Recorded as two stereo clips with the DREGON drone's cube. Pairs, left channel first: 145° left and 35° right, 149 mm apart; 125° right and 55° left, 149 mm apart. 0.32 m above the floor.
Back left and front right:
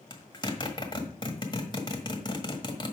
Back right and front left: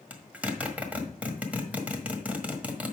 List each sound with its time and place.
0.1 s a zipper: 125° left, 1.5 m